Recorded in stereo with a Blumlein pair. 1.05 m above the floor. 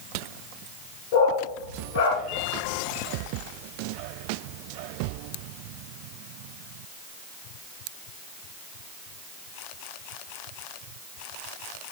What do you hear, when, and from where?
1.1 s a dog barking: 45° left, 5.5 m